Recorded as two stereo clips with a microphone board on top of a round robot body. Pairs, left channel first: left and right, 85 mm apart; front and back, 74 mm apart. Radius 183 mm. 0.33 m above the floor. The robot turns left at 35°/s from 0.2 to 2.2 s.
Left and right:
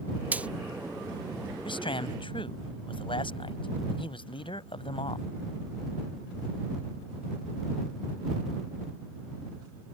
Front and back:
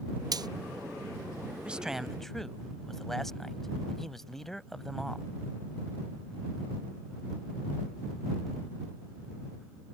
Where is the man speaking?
105° left; by 5.3 s 85° left.